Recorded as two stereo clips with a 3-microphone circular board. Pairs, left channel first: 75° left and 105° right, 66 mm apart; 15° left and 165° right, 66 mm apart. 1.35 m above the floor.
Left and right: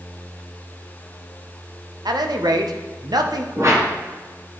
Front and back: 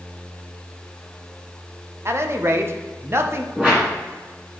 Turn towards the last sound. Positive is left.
turn(degrees=-95)